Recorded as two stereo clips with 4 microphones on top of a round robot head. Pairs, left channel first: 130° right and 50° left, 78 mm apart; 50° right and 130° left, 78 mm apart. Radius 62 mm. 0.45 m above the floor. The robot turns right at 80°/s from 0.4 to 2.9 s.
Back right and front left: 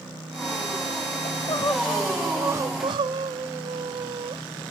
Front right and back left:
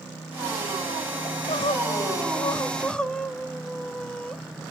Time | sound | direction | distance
1.2 | crying | 105° right | 0.5 m